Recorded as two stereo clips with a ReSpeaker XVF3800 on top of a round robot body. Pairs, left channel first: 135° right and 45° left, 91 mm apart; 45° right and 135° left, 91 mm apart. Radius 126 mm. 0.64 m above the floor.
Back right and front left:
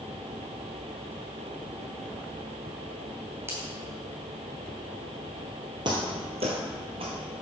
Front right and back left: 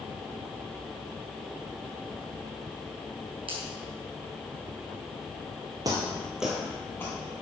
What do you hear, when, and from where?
3.5 s a finger snap: 105° left, 3.5 m
5.8 s footsteps: 85° left, 0.8 m; by 7.2 s 15° left, 1.0 m